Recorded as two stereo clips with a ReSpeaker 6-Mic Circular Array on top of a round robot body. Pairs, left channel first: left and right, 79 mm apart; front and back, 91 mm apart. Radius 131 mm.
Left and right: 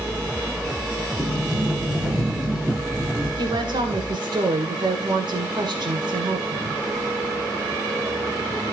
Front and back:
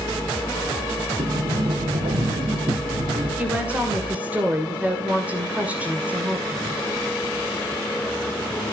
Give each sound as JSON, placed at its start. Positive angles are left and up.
{"t": 1.2, "sound": "a sliding door", "azimuth_deg": -170, "distance_m": 1.8}
{"t": 3.4, "sound": "a woman speaking", "azimuth_deg": -110, "distance_m": 2.5}